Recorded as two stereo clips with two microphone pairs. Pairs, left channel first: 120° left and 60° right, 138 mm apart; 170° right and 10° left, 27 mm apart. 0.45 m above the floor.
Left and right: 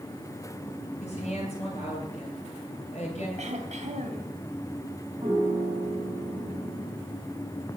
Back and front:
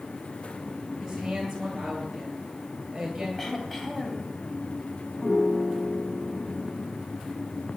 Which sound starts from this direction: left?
A woman speaking, at 1.0 s.